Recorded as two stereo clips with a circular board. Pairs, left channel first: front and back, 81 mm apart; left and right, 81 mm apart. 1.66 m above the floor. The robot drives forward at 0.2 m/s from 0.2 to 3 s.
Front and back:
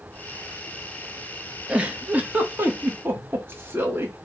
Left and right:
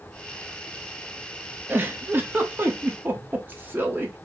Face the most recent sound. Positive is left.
turn(degrees=-140)